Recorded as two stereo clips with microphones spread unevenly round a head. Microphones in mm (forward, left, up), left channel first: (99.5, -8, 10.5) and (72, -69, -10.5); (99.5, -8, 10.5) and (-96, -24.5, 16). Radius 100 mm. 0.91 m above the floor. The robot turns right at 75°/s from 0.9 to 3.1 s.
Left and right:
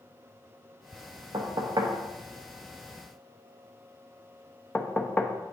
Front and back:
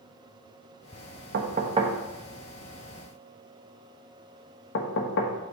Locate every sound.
1.3 s knocking: 145° right, 0.9 m; by 5.3 s 10° right, 0.9 m